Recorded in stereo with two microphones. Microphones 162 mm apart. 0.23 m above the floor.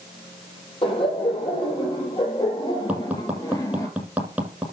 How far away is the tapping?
About 7 m.